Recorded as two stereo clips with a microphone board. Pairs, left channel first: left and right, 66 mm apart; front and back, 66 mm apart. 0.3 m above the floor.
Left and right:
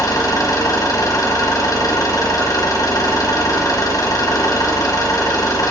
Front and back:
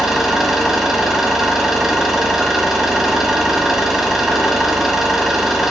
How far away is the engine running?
About 1.4 m.